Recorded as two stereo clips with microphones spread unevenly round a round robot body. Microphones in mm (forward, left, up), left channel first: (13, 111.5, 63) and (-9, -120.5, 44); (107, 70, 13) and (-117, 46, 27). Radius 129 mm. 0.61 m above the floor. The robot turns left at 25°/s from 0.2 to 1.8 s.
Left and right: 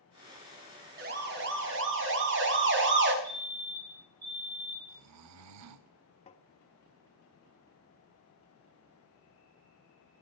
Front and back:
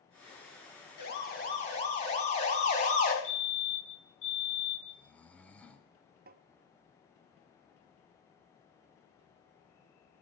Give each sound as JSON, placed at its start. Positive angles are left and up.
{"t": 1.0, "sound": "a siren", "azimuth_deg": -45, "distance_m": 6.0}
{"t": 3.2, "sound": "a fire alarm", "azimuth_deg": -25, "distance_m": 4.5}
{"t": 4.9, "sound": "snoring", "azimuth_deg": -80, "distance_m": 0.8}
{"t": 6.3, "sound": "tapping", "azimuth_deg": 145, "distance_m": 0.8}